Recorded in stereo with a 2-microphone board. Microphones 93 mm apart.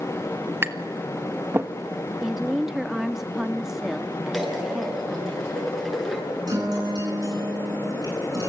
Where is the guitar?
45° right (ahead or behind), 10 m.